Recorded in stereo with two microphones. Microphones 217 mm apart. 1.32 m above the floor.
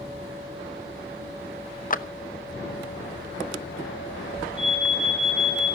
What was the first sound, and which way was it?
A clap, 40° left (ahead or behind).